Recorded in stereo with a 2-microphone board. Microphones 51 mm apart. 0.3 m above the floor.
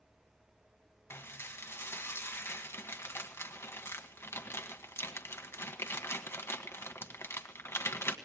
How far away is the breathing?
I don't hear breathing.